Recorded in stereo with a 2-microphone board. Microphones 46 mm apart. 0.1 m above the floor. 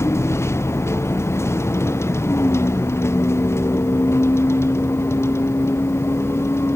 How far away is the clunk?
No clunk in this recording.